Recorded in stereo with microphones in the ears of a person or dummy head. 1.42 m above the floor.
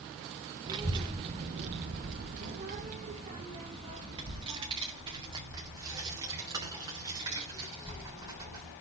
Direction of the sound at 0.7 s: 15° right (ahead or behind).